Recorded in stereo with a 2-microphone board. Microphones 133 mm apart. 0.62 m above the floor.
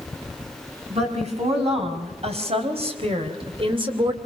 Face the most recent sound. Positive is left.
turn(degrees=-40)  # may be behind; listen again after turning